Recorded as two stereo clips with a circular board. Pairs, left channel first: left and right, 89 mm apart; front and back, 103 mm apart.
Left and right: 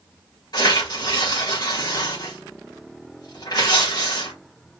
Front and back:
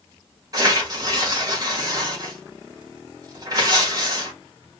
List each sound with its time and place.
0.5 s tearing paper: 125° left, 3.5 m